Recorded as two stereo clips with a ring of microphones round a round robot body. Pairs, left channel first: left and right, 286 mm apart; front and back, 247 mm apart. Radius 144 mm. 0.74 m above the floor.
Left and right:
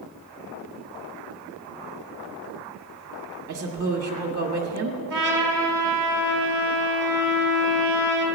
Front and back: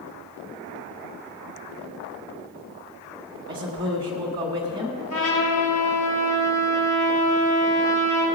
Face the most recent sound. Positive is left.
turn(degrees=-40)